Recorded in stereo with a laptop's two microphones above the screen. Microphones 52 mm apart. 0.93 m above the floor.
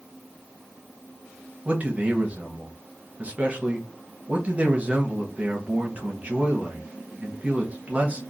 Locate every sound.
1.6 s a man speaking: 30° right (ahead or behind), 0.8 m